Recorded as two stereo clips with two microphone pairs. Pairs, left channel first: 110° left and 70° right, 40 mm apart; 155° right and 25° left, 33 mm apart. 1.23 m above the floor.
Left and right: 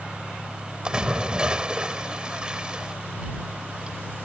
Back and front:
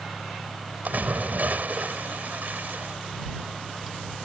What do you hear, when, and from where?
0.8 s a splash: 5° right